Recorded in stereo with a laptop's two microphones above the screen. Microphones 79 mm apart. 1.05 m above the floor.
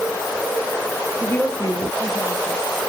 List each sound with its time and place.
1.2 s a woman speaking: 25° left (ahead or behind), 0.7 m; by 2.7 s 65° left (ahead or behind), 1.7 m